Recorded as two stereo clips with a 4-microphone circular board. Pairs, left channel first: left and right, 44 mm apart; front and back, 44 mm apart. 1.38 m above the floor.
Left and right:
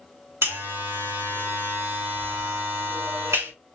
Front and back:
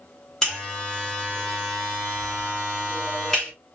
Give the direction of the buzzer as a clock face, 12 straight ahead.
3 o'clock.